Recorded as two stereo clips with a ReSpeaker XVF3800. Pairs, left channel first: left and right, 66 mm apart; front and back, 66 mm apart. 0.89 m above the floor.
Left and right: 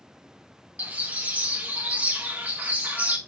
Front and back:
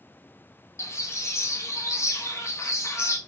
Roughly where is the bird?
Ahead right.